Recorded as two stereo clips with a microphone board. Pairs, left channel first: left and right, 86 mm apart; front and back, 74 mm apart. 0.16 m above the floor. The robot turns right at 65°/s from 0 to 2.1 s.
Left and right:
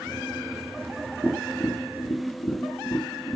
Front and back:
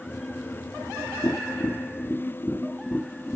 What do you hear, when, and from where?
1.2 s tapping: 5° left, 4 m; by 3.4 s 65° left, 4 m